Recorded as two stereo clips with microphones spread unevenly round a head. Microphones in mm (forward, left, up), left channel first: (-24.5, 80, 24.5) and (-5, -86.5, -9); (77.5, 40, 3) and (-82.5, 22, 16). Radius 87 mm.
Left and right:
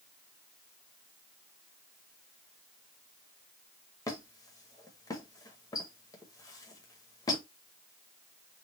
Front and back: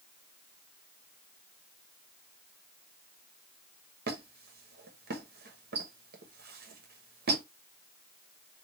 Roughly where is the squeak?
Behind.